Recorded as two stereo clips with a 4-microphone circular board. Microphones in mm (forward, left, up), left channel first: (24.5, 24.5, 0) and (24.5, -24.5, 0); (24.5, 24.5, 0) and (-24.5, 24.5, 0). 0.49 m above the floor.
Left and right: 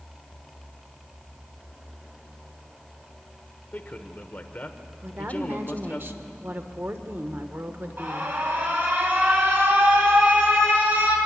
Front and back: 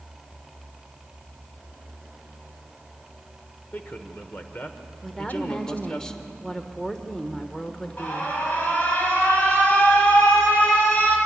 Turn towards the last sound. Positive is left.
turn(degrees=-45)